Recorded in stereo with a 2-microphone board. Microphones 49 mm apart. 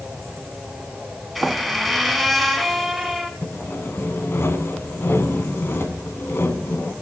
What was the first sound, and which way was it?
A squeak, centre (ahead or behind).